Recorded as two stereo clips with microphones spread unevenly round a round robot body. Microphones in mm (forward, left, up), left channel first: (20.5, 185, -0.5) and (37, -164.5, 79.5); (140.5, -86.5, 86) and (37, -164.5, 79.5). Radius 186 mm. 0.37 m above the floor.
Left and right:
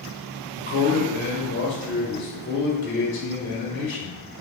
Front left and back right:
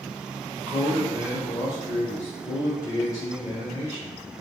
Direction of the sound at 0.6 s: 95° left.